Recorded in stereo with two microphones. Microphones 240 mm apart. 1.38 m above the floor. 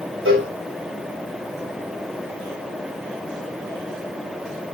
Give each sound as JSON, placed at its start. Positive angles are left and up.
{"t": 0.2, "sound": "a cowbell", "side_deg": -60, "distance_m": 2.5}